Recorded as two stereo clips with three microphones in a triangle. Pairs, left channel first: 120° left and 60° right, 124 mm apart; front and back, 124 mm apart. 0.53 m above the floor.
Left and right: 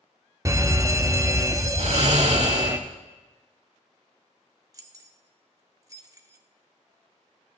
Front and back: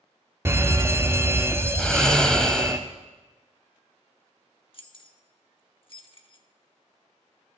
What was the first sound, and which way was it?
An alarm, 115° right.